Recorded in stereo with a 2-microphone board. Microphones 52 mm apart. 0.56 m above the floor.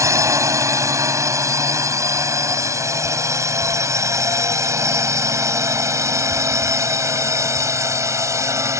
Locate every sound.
0.0 s a drone: 70° right (ahead or behind); by 8.8 s 65° right (ahead or behind)